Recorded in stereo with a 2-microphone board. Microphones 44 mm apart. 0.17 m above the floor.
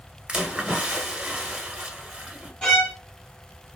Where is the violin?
15° left (ahead or behind), 1.7 m.